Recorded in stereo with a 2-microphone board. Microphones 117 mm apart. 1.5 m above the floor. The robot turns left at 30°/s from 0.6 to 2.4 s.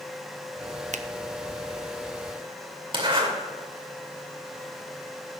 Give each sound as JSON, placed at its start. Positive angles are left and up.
{"t": 0.9, "sound": "a finger snap", "side_deg": -80, "distance_m": 0.6}
{"t": 2.9, "sound": "a zipper", "side_deg": -45, "distance_m": 2.5}